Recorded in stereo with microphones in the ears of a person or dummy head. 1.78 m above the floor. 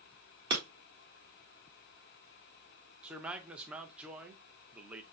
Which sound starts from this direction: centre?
A man speaking, at 3.0 s.